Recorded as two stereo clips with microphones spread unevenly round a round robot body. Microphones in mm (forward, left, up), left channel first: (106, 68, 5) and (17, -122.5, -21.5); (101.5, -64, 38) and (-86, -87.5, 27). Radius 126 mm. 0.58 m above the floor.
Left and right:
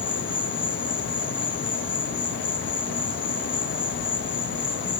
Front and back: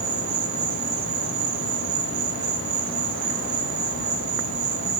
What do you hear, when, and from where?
0.0 s an insect: 135° left, 4.5 m